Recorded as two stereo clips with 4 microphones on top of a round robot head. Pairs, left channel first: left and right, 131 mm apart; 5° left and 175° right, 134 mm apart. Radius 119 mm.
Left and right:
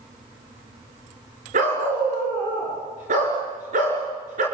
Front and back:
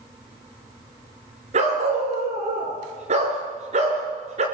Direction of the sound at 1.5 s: 130° right.